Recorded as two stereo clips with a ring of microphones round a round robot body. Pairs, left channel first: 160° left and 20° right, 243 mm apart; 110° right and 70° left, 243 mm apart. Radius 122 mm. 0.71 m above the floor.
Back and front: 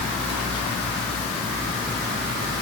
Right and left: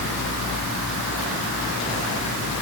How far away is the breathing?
No breathing in this recording.